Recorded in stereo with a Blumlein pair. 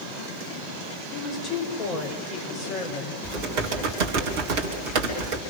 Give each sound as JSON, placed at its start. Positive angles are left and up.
{"t": 1.1, "sound": "a woman speaking", "azimuth_deg": 25, "distance_m": 6.5}
{"t": 3.2, "sound": "typing on a keyboard", "azimuth_deg": -45, "distance_m": 4.0}